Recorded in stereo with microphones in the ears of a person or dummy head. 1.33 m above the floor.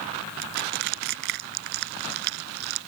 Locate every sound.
0.4 s crushing: 55° right (ahead or behind)